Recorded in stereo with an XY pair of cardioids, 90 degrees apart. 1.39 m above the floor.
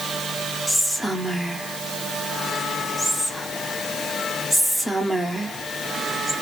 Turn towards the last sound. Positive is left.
turn(degrees=5)